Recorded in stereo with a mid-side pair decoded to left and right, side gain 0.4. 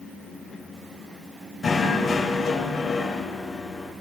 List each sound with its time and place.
1.6 s knocking: 40° left, 7.5 m